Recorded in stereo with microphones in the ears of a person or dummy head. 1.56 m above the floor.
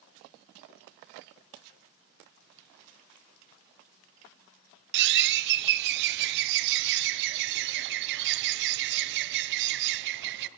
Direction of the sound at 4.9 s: 60° right (ahead or behind).